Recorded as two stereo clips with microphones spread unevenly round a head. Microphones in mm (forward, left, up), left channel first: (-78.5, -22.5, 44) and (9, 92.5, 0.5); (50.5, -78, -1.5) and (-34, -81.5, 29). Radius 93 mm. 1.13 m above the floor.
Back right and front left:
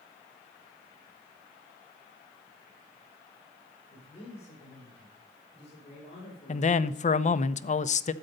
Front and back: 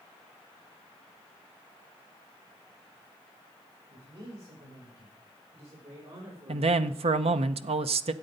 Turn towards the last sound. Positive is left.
turn(degrees=-175)